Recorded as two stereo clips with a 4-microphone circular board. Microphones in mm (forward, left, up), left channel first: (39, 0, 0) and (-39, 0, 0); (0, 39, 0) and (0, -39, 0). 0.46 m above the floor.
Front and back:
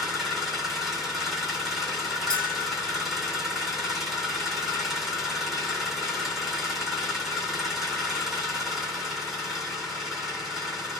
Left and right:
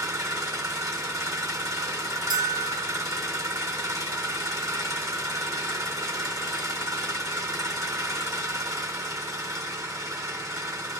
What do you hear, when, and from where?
0.0 s an engine running: 95° right, 1.4 m
2.3 s a bell: 80° right, 1.1 m